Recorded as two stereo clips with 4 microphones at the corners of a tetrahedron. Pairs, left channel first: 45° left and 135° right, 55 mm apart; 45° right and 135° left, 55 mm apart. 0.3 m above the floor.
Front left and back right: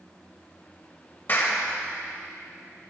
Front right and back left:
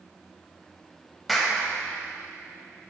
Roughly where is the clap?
Ahead left.